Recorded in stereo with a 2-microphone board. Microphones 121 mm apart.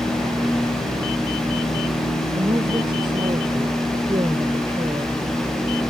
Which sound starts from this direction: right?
A woman speaking, at 2.3 s.